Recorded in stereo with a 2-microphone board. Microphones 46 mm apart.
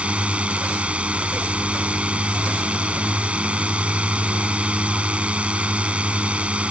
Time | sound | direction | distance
0.0 | a drone | 25° right (ahead or behind) | ?